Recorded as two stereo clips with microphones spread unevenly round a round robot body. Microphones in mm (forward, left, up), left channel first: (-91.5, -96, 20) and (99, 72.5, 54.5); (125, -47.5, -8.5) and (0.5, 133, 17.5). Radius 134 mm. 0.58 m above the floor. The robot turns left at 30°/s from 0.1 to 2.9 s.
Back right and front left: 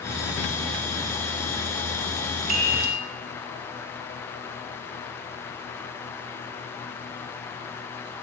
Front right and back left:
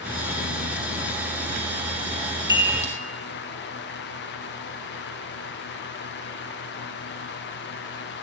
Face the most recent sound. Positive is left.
turn(degrees=0)